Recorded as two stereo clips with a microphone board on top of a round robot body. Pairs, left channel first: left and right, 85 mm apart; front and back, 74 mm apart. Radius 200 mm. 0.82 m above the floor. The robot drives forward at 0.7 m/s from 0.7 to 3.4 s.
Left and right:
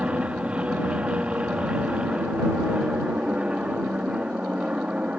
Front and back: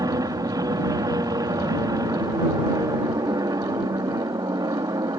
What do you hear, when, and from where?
0.0 s an aircraft: 165° right